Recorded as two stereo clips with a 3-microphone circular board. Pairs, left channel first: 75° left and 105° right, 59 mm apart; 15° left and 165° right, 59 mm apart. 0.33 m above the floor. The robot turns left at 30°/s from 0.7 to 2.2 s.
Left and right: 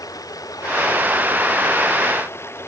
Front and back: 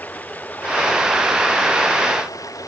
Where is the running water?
75° left; by 2.7 s 30° left.